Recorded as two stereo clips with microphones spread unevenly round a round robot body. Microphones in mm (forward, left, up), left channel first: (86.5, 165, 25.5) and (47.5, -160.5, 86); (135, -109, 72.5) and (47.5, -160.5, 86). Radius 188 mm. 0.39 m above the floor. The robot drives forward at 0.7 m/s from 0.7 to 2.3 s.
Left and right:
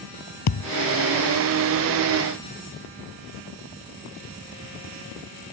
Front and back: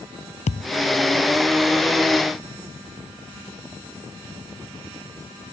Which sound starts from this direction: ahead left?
A thud, at 0.5 s.